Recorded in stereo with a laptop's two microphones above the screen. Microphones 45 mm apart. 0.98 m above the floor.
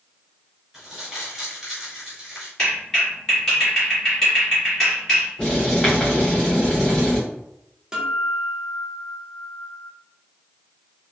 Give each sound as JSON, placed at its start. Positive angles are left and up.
{"t": 0.7, "sound": "crumpling", "side_deg": -5, "distance_m": 1.6}
{"t": 2.6, "sound": "a clap", "side_deg": 10, "distance_m": 1.7}
{"t": 5.4, "sound": "writing", "side_deg": 10, "distance_m": 1.7}
{"t": 7.9, "sound": "a guitar", "side_deg": -15, "distance_m": 0.7}